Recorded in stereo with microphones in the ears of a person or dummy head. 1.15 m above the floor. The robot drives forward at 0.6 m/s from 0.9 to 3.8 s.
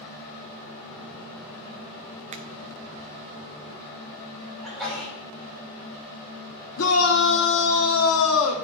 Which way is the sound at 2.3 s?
35° right (ahead or behind).